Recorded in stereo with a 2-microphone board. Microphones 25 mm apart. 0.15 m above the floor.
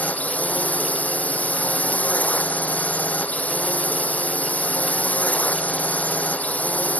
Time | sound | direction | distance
0.0 | a drone | 75° left (ahead or behind) | ?